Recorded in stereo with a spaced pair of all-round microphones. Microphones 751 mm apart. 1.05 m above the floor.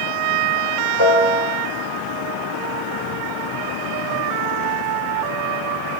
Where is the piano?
40° left (ahead or behind), 3.5 m.